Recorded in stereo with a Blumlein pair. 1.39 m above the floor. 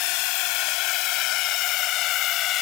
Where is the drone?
45° left; by 2.6 s 35° left.